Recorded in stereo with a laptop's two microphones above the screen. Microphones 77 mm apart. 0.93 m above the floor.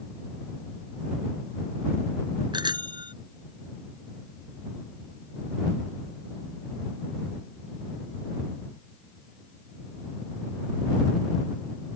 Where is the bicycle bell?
80° right.